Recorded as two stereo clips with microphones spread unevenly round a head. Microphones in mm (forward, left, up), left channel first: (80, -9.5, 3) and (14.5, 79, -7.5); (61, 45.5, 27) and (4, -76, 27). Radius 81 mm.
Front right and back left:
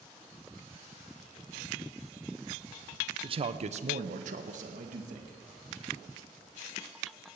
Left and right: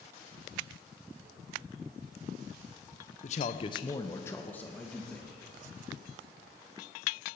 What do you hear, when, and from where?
3.2 s a man speaking: 95° left, 0.8 m; by 5.4 s 150° left, 2.5 m